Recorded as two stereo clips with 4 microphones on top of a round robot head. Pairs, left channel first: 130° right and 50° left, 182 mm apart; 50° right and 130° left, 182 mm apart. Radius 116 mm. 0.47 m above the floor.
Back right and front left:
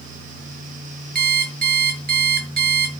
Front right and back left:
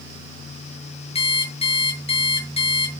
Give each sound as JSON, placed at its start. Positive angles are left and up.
{"t": 1.1, "sound": "an alarm clock", "azimuth_deg": 10, "distance_m": 6.0}